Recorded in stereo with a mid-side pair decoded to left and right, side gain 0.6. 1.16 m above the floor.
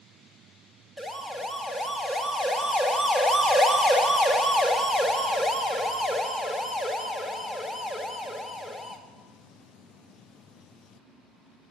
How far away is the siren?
About 2 m.